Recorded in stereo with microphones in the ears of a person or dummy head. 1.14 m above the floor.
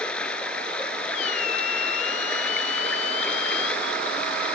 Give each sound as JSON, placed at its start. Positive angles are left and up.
{"t": 0.0, "sound": "running water", "side_deg": 5}
{"t": 1.1, "sound": "a squeak", "side_deg": 50}